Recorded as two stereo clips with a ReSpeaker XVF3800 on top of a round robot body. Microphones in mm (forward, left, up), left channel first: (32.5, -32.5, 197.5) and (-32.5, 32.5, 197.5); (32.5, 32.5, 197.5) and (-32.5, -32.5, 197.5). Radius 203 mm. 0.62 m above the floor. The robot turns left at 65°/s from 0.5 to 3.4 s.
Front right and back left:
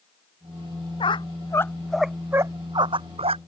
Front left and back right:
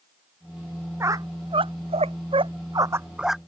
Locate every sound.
1.0 s a squeak: 70° right; by 3.4 s 135° left